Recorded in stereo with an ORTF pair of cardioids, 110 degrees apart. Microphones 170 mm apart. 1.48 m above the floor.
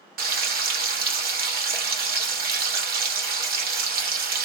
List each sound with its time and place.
0.2 s frying: 60° right, 1.2 m